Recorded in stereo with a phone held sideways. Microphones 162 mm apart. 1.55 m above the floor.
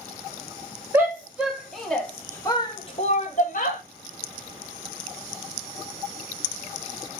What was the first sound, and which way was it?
A shout, 15° right (ahead or behind).